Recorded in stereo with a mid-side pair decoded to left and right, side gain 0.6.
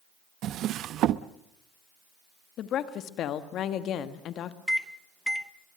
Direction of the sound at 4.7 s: Straight ahead.